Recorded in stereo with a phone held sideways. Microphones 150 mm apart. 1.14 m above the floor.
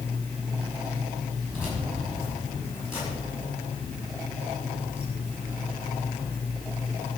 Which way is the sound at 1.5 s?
15° left (ahead or behind).